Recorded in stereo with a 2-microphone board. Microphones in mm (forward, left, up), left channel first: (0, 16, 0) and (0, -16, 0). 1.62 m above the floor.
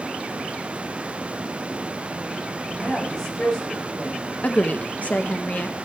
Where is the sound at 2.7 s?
20° left (ahead or behind), 4.5 m.